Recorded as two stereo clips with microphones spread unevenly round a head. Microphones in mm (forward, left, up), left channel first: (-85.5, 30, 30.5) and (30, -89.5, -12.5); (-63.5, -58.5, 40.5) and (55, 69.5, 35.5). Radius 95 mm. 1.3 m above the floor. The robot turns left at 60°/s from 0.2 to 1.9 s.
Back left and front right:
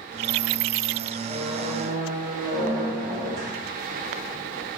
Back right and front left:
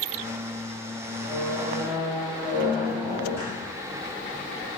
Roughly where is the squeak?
Ahead.